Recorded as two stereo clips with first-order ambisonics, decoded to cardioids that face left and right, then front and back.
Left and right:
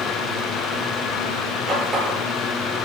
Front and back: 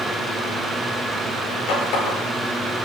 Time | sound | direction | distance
1.7 | a running tap | 30° right | 8.5 m